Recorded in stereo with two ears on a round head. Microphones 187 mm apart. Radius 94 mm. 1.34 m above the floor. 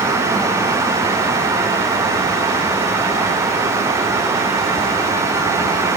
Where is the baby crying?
I don't hear a baby crying.